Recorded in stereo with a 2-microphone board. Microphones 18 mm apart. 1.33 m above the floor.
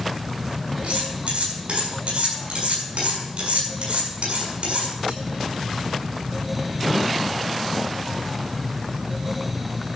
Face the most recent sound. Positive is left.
turn(degrees=-80)